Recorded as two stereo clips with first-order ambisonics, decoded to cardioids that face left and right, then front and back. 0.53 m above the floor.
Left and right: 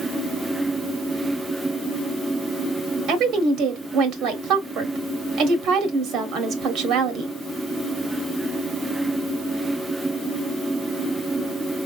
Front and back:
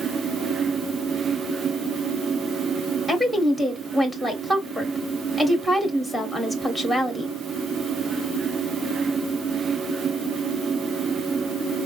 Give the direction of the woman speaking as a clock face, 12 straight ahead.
3 o'clock.